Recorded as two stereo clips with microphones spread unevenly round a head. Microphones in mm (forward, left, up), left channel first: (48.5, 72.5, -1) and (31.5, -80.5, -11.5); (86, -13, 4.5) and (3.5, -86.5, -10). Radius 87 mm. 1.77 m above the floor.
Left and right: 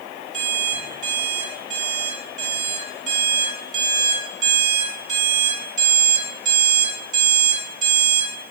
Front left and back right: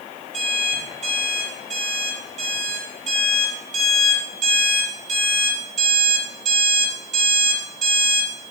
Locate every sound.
0.3 s an alarm clock: 135° right, 2.5 m